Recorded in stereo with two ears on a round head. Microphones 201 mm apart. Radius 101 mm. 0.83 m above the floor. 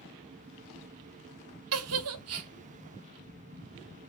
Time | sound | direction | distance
1.7 | a giggle | 70° right (ahead or behind) | 1.0 m